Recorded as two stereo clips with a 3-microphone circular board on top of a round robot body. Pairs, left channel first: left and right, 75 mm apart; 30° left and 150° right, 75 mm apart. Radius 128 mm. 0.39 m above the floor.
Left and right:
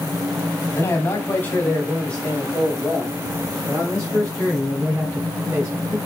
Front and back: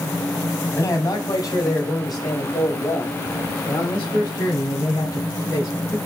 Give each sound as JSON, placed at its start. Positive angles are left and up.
{"t": 0.7, "sound": "a man speaking", "azimuth_deg": 55, "distance_m": 1.5}